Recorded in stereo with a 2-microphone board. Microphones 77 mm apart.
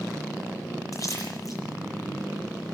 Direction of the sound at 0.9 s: 45° left (ahead or behind).